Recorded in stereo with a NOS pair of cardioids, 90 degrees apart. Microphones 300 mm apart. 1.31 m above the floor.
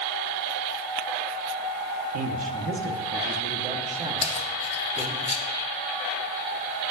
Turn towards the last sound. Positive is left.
turn(degrees=20)